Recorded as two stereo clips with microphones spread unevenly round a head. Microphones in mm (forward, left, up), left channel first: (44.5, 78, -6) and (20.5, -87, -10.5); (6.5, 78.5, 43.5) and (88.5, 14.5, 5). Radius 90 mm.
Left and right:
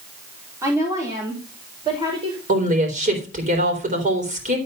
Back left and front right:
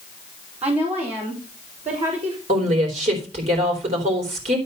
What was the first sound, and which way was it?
A woman speaking, 25° right.